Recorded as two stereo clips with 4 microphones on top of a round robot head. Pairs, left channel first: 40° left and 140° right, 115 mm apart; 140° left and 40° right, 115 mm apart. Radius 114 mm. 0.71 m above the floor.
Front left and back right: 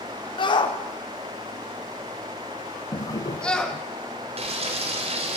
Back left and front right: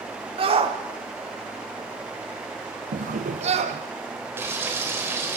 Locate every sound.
0.4 s a shout: 5° right, 3 m; by 3.8 s 45° right, 2.5 m
2.9 s a drawer: 25° right, 0.9 m
4.4 s frying: 110° right, 4 m